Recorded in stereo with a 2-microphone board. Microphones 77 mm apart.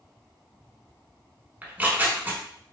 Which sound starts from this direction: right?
Tearing paper, at 1.6 s.